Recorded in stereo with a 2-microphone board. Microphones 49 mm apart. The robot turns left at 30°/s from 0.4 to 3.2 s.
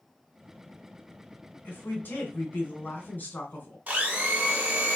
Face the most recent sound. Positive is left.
turn(degrees=-35)  # may be behind; listen again after turning